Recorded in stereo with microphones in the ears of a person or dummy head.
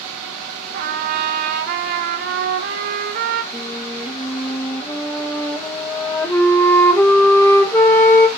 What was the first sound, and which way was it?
A trumpet, 55° right (ahead or behind).